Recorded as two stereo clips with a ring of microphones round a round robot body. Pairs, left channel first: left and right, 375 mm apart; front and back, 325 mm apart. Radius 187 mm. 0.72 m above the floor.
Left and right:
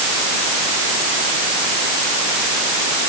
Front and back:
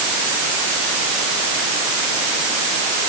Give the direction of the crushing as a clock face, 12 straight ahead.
I don't hear crushing.